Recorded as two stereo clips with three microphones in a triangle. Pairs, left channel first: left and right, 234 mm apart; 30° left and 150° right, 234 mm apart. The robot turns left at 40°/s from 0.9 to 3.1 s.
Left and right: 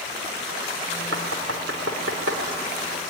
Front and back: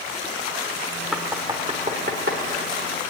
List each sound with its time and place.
1.1 s knocking: 60° right, 3 m; by 2.4 s 115° right, 3 m